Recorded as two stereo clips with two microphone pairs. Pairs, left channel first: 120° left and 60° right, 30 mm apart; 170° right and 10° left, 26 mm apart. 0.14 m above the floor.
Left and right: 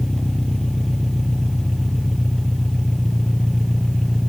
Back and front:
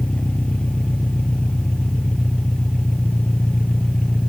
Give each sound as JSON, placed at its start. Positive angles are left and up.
{"t": 0.0, "sound": "an engine running", "azimuth_deg": -165, "distance_m": 3.0}